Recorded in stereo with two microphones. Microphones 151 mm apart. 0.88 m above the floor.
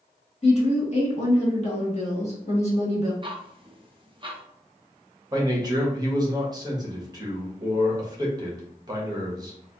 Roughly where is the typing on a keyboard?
No typing on a keyboard in this recording.